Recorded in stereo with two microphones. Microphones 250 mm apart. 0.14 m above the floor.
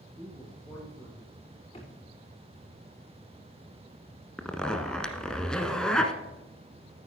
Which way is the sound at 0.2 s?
5° right (ahead or behind).